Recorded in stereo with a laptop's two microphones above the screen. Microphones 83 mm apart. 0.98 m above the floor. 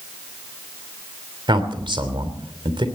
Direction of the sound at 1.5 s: 80° right.